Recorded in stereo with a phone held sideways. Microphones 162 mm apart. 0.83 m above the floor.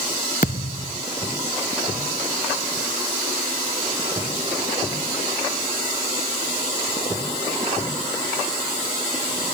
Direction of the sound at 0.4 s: 60° left (ahead or behind).